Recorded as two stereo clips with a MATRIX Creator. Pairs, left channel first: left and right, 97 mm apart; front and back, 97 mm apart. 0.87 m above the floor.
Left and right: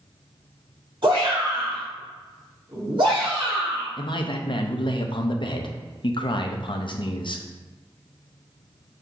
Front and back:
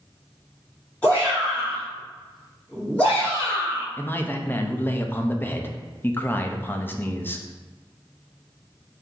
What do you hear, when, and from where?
1.0 s a shout: 75° right, 1.7 m
4.0 s a man speaking: 65° left, 0.6 m